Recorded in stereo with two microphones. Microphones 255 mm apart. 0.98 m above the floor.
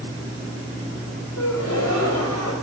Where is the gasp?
85° left, 3.5 m.